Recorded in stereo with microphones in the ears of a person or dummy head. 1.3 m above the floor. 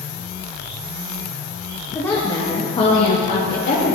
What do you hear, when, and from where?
1.9 s a woman speaking: 15° left (ahead or behind), 1.8 m; by 4.0 s 50° left (ahead or behind), 3 m